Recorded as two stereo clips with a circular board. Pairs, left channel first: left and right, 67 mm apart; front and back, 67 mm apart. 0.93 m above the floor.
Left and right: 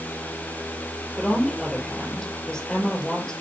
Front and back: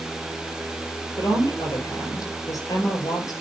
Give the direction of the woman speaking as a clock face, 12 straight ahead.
12 o'clock.